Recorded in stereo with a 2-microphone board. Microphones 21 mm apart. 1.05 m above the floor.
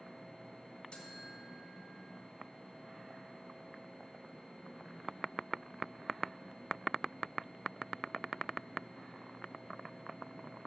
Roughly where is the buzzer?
Left.